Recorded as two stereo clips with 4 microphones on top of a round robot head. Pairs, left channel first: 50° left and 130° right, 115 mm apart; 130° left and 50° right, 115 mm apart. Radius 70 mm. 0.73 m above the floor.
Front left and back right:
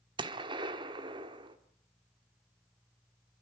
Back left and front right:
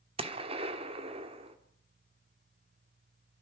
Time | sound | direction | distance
0.2 | a gunshot | 85° right | 1.6 m